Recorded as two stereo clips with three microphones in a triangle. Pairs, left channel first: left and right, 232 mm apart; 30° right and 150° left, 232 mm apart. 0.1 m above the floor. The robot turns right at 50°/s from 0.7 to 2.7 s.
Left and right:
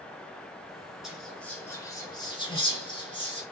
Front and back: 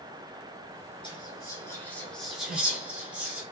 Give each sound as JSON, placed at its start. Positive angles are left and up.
{"t": 1.0, "sound": "whispering", "azimuth_deg": -5, "distance_m": 1.2}